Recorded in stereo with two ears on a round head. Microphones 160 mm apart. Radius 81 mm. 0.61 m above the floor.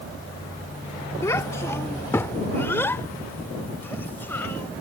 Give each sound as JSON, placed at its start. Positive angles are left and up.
{"t": 1.2, "sound": "a child speaking", "side_deg": 15}